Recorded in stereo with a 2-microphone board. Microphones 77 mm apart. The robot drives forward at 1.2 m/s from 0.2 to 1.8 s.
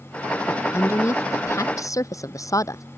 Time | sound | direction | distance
0.5 | a woman speaking | 40° left (ahead or behind) | ?